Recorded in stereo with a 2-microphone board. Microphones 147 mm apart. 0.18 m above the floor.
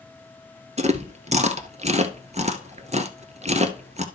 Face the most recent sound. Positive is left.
turn(degrees=-50)  # may be behind; listen again after turning